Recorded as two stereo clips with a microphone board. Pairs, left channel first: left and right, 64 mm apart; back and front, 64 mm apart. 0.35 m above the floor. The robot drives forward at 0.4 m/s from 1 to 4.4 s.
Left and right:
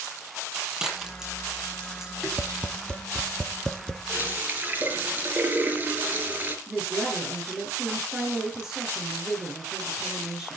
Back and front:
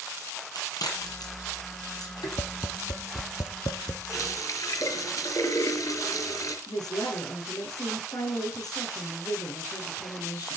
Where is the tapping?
160° left, 0.7 m; by 4.0 s 170° left, 1.3 m.